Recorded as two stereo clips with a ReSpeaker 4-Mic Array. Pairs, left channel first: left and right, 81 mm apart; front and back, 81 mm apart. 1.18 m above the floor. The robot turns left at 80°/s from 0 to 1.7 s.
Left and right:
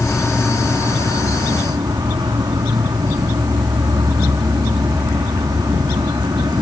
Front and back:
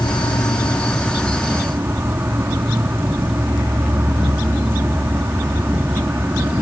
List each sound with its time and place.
0.0 s an insect: 15° left; by 6.6 s 120° right